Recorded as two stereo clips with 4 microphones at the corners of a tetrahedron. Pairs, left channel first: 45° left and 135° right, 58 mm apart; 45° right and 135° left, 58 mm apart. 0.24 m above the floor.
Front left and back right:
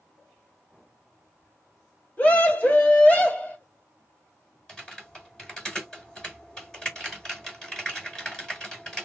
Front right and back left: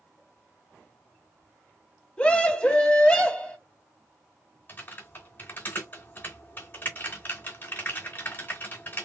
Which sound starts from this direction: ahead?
A scream, at 2.2 s.